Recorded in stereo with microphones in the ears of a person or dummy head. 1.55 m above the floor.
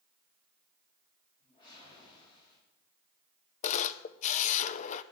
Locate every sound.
1.4 s a whoosh: 25° left (ahead or behind), 8.5 m
3.6 s a camera shutter: 40° left (ahead or behind), 0.7 m